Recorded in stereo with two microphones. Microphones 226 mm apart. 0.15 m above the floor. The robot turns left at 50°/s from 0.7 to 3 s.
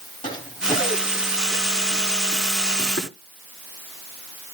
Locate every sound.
0.2 s running footsteps: 20° left (ahead or behind), 7 m; by 3.1 s 60° left (ahead or behind), 8 m